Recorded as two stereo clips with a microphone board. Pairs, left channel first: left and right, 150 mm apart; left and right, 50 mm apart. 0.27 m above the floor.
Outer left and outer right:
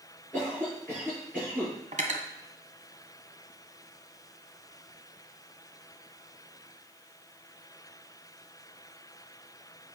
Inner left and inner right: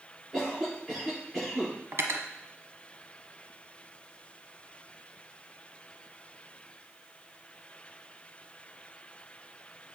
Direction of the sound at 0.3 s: 15° right (ahead or behind).